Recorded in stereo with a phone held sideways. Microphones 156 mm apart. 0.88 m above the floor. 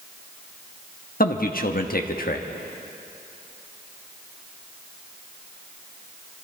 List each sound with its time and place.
1.2 s a man speaking: 65° left (ahead or behind), 1.1 m